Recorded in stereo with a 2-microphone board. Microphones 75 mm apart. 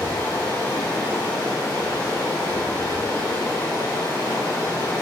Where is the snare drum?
No snare drum in this recording.